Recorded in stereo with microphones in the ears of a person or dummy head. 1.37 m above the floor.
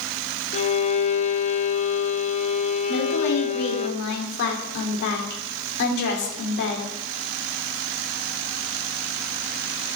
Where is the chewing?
I don't hear chewing.